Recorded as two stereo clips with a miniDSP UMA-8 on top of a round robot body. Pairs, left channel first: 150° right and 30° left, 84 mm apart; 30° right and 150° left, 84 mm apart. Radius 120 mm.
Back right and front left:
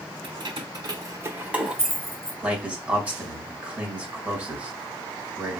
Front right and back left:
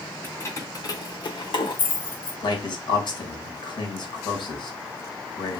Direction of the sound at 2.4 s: 40° right.